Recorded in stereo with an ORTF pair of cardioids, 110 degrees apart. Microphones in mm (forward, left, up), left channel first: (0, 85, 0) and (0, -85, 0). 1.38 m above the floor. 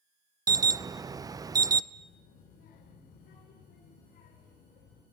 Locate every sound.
0.5 s an alarm: 20° right, 0.6 m
1.9 s a child speaking: 60° left, 4.5 m